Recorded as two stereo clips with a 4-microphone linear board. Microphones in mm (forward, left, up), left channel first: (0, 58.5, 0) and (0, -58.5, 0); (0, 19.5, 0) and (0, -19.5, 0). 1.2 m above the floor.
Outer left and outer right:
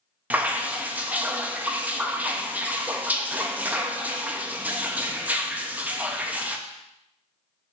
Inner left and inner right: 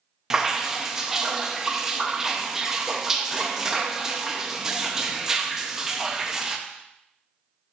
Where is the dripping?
15° right (ahead or behind), 0.7 m.